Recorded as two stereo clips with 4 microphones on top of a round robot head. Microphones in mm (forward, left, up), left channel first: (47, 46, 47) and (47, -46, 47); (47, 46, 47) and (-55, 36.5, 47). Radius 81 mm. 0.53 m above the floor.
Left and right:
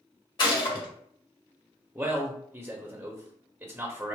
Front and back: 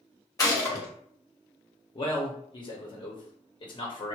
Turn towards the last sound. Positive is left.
turn(degrees=-20)